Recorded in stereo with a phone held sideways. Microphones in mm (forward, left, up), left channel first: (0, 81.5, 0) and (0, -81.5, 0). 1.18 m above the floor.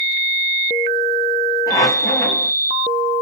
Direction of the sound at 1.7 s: 20° left (ahead or behind).